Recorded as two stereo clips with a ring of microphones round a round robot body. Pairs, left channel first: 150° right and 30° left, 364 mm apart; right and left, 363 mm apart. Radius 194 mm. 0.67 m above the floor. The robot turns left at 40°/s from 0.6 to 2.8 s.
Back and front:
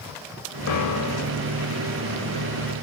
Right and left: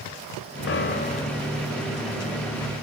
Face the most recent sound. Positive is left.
turn(degrees=140)